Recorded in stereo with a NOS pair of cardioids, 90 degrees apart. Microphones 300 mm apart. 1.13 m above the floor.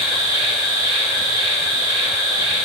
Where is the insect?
15° left, 1.3 m.